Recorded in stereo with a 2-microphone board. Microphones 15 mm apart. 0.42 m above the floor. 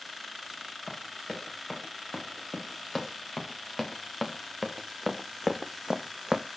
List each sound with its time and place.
0.9 s running footsteps: centre (ahead or behind), 7.5 m; by 6.5 s 75° right (ahead or behind), 1.2 m